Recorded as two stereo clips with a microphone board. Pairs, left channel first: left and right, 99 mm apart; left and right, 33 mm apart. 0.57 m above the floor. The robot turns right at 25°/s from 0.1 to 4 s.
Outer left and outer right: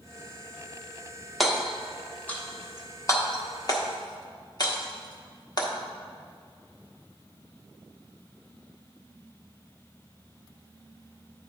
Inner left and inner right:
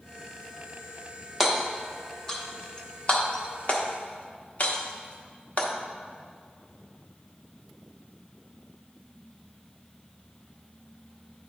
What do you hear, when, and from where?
1.4 s hammering: centre (ahead or behind), 0.9 m; by 5.7 s 45° left (ahead or behind), 0.9 m